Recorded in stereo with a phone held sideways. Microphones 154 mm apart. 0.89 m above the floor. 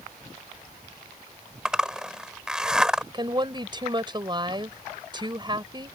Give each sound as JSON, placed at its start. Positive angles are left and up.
{"t": 1.6, "sound": "a zipper", "side_deg": -5}
{"t": 3.1, "sound": "a woman speaking", "side_deg": -30}